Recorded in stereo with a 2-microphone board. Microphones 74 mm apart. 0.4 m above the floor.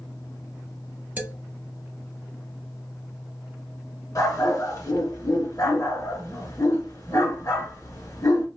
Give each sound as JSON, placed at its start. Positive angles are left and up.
{"t": 1.2, "sound": "a man speaking", "side_deg": -25, "distance_m": 1.1}
{"t": 4.2, "sound": "a dog barking", "side_deg": 50, "distance_m": 1.3}